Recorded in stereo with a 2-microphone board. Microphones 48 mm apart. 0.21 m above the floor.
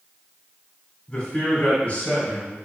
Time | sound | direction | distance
1.1 | a man speaking | 25° left (ahead or behind) | 1.4 m